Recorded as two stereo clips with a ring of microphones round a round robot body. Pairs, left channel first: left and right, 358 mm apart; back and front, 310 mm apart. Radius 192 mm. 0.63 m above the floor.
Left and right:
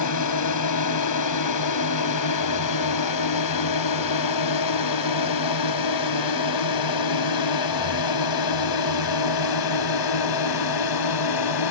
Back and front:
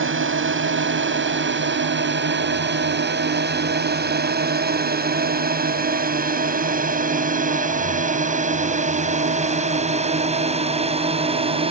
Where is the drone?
50° left; by 11.7 s 70° left.